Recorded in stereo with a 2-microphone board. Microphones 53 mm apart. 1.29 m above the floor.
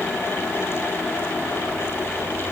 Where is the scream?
No scream in this recording.